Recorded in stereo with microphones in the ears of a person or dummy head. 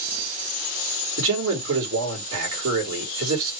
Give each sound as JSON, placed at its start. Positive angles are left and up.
{"t": 1.2, "sound": "a man speaking", "side_deg": -70, "distance_m": 2.5}